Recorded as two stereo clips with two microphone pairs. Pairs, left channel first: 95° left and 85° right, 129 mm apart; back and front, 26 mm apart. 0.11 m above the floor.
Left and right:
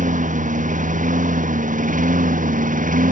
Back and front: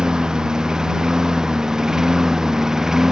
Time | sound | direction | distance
0.0 | a lawn mower | 65° right | ?